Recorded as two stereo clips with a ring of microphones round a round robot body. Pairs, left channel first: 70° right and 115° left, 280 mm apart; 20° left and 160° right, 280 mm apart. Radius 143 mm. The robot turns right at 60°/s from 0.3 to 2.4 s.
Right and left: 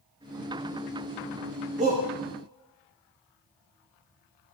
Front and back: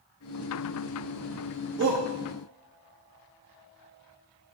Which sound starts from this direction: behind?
A shout, at 1.8 s.